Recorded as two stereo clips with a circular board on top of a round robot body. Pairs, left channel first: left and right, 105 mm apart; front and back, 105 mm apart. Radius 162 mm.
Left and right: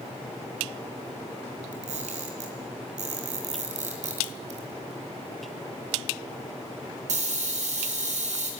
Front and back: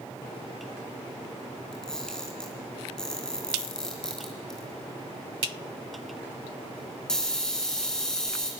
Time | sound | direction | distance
1.7 | a camera shutter | 85° right | 3.5 m